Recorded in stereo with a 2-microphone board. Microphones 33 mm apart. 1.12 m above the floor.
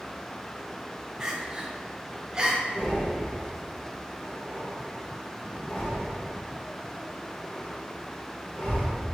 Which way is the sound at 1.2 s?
20° right (ahead or behind).